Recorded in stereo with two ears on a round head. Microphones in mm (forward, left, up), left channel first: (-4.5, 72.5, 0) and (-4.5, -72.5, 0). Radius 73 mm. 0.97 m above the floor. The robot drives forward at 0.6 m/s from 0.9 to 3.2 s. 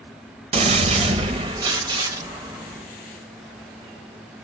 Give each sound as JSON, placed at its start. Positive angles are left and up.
{"t": 0.5, "sound": "a gunshot", "side_deg": -35, "distance_m": 0.9}